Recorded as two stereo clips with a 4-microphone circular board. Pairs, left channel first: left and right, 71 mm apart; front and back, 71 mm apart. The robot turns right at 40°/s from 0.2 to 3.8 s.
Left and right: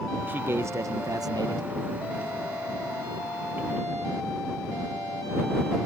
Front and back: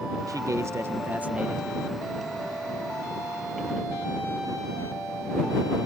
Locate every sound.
0.3 s a man speaking: 155° right; by 1.7 s 100° right